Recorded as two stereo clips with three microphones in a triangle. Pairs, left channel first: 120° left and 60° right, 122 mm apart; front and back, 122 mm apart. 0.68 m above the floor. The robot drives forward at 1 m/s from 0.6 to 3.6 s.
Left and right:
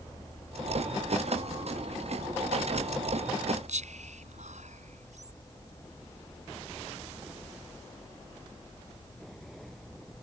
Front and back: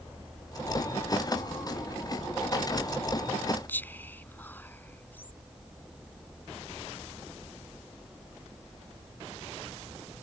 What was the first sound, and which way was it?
Whispering, 75° right.